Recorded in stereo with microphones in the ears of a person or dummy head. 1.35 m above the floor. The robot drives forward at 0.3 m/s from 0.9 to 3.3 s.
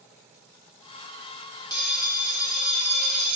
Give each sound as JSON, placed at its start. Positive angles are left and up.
{"t": 1.7, "sound": "a bell", "side_deg": 25, "distance_m": 0.8}